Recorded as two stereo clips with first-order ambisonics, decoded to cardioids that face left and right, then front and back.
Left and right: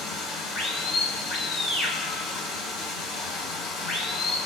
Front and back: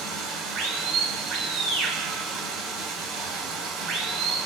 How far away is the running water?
About 2.5 m.